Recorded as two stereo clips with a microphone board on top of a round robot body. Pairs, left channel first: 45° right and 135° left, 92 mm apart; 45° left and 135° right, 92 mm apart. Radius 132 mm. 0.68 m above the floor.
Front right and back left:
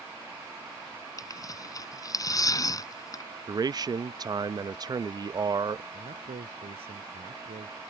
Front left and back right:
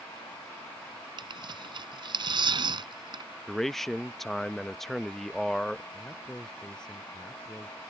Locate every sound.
1.2 s tearing paper: 100° right
3.5 s a man speaking: 130° left
5.9 s a man speaking: 125° left